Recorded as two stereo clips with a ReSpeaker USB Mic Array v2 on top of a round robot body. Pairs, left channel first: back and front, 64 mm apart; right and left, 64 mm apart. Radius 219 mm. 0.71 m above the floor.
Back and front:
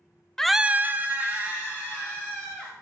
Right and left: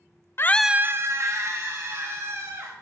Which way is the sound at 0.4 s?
105° right.